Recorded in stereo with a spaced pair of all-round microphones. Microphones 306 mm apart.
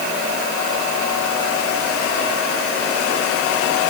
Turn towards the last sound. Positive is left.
No sound to turn to.